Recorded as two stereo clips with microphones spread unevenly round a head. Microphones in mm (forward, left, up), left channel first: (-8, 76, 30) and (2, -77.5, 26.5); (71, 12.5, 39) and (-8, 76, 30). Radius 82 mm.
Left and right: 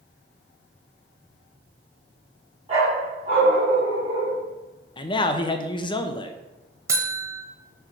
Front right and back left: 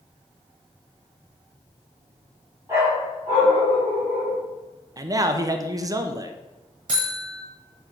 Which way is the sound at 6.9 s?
160° right.